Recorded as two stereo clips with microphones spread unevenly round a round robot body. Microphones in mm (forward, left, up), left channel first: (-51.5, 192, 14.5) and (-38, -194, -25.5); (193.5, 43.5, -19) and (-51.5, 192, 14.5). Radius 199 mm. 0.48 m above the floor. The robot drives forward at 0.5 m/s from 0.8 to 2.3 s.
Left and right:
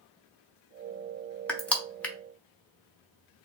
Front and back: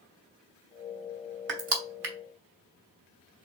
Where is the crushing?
175° right, 1.0 m.